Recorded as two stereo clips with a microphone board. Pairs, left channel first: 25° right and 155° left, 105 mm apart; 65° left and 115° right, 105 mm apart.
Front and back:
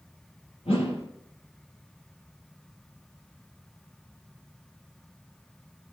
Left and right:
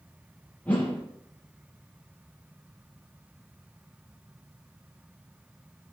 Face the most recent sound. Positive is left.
turn(degrees=-5)